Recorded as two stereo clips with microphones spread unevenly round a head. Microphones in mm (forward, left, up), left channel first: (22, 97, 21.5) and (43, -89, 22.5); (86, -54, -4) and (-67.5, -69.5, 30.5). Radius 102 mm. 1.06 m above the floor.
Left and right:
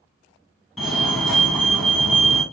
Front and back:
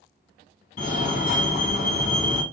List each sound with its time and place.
0.8 s a fire alarm: 5° left, 2.5 m